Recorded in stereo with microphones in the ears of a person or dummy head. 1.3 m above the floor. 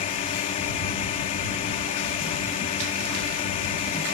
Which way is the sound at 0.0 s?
40° left (ahead or behind).